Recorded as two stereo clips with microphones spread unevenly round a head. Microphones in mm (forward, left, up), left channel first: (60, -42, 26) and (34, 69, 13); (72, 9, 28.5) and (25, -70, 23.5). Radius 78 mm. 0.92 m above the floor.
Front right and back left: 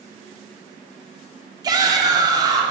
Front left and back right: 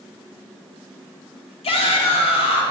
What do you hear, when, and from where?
1.6 s a shout: 50° left, 2.5 m